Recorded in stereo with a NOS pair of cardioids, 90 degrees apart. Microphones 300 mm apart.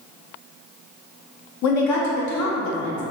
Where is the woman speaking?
65° left, 0.7 m.